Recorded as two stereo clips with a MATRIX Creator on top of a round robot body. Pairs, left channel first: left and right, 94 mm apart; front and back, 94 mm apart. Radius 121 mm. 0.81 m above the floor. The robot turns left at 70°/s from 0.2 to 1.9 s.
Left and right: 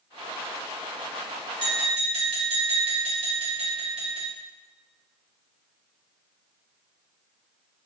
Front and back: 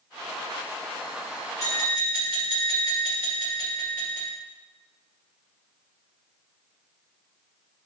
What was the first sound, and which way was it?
Tapping, 55° right.